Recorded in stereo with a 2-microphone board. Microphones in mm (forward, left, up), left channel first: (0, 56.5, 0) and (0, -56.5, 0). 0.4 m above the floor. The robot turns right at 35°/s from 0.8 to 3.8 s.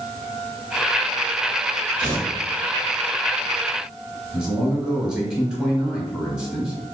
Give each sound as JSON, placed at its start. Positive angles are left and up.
{"t": 2.0, "sound": "tearing paper", "side_deg": -35, "distance_m": 1.3}
{"t": 4.3, "sound": "a man speaking", "side_deg": -5, "distance_m": 1.1}